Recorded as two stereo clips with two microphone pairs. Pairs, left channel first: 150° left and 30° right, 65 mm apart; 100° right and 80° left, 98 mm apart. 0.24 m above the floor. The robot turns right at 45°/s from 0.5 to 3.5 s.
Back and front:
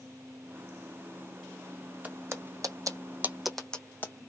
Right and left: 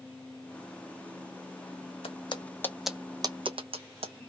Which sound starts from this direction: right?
Footsteps, at 2.0 s.